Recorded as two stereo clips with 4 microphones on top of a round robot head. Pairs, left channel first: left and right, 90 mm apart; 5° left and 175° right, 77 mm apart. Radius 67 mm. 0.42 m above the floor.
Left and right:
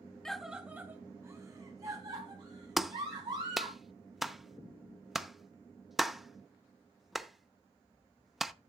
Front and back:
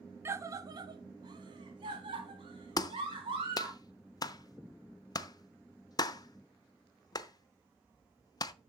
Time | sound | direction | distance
0.2 | a scream | 170° left | 0.8 m
2.8 | a clap | 5° right | 0.8 m